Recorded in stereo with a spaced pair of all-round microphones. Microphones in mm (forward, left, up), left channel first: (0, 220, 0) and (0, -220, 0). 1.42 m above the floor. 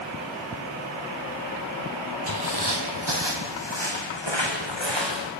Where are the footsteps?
55° right (ahead or behind), 2.5 m; by 5.3 s 75° right (ahead or behind), 6.5 m.